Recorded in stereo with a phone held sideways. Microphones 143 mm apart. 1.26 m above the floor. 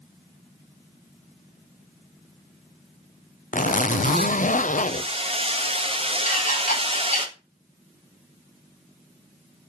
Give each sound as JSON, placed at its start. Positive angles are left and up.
{"t": 3.5, "sound": "a zipper", "side_deg": 60, "distance_m": 0.6}
{"t": 4.9, "sound": "hammering", "side_deg": -40, "distance_m": 1.5}
{"t": 6.3, "sound": "dishes clattering", "side_deg": 65, "distance_m": 4.0}